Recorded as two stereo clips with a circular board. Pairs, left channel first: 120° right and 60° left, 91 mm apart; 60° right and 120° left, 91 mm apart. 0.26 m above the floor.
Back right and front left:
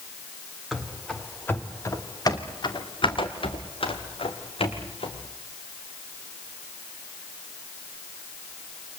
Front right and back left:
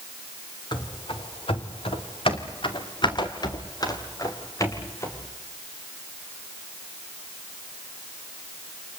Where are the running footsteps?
30° right, 3 m; by 5.2 s 120° right, 6 m.